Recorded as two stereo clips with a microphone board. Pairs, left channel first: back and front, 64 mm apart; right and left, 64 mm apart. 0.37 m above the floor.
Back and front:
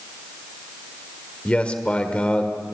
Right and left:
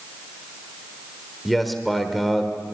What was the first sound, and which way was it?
A man speaking, 175° right.